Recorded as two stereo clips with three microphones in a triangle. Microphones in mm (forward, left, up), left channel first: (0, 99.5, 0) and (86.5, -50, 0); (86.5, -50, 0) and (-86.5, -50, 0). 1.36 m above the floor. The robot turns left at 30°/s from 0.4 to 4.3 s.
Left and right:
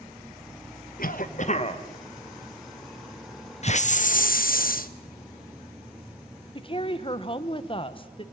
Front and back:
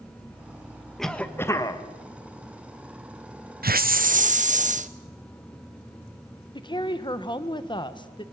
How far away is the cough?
About 1.4 m.